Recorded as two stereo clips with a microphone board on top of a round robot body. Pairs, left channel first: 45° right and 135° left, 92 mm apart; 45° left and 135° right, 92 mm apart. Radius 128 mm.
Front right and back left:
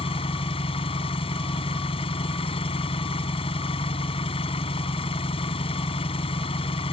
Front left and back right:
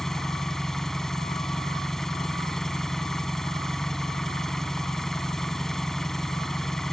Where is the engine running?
40° right.